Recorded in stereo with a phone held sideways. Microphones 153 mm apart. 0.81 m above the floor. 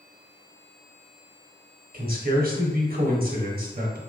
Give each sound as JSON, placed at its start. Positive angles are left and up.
{"t": 1.9, "sound": "a man speaking", "side_deg": -65, "distance_m": 1.3}